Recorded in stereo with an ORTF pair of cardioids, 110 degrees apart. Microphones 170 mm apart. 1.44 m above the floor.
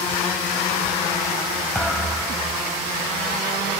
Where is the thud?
5° left, 5 m.